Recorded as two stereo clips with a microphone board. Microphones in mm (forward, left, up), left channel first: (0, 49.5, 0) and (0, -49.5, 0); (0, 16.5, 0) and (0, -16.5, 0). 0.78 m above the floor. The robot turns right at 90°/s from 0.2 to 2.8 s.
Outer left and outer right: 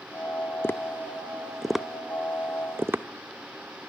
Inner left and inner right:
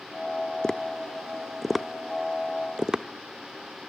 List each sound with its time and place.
0.6 s tapping: 20° left (ahead or behind), 0.5 m; by 3.0 s 20° right (ahead or behind), 0.5 m